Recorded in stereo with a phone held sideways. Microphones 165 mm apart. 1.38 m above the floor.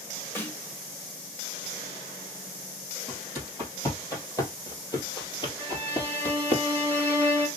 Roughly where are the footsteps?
Centre.